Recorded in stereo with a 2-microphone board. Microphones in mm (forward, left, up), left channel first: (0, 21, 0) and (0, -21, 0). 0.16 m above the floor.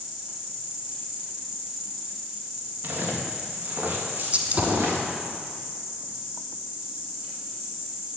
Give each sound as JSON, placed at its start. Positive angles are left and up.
{"t": 0.0, "sound": "an insect", "side_deg": -5, "distance_m": 4.0}
{"t": 2.8, "sound": "footsteps", "side_deg": -50, "distance_m": 3.5}
{"t": 4.3, "sound": "a gunshot", "side_deg": -35, "distance_m": 1.2}